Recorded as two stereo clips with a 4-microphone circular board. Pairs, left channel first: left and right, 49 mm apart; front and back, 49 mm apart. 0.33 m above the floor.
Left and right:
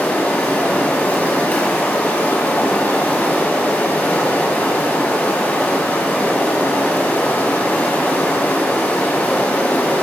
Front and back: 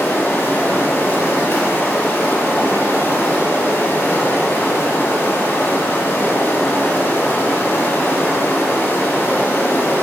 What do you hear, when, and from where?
0.0 s running water: 35° left, 1.4 m